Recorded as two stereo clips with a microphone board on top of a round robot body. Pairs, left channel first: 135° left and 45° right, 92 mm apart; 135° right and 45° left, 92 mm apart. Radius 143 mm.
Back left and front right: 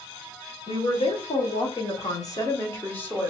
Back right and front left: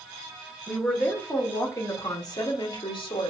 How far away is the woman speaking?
About 1.9 m.